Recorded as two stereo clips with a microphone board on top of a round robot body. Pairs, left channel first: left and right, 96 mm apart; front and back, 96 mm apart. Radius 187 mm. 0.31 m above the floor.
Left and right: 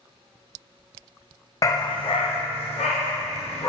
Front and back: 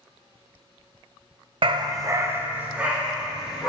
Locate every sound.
1.6 s a dog barking: 150° left, 0.7 m; by 3.7 s 95° left, 2.5 m